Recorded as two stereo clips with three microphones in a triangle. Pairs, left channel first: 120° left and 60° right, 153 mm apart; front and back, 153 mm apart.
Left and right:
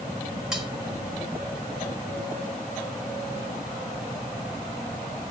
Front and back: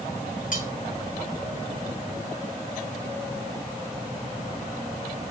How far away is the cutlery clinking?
About 1.9 m.